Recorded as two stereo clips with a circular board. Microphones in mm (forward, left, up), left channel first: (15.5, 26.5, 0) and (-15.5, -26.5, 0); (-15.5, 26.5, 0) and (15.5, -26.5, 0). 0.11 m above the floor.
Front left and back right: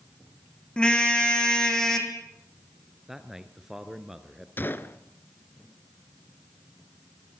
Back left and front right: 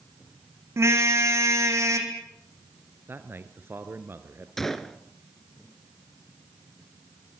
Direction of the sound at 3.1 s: 40° right.